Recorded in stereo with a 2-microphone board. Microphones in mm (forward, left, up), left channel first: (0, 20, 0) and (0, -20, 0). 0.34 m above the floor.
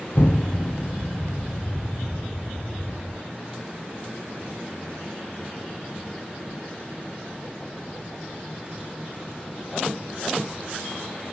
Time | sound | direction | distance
0.1 | an explosion | 60° left (ahead or behind) | 1.4 m